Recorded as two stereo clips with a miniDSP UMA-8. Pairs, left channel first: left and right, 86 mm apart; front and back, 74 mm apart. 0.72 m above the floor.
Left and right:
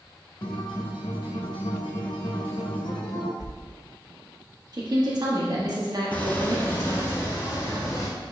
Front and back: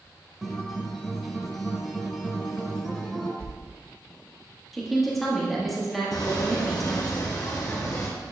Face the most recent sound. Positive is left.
turn(degrees=40)